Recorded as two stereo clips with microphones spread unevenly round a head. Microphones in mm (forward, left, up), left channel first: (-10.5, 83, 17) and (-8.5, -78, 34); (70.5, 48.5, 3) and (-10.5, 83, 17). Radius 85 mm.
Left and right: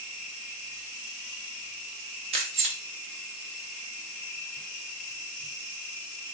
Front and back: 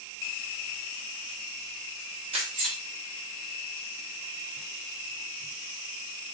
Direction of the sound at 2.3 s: 145° right.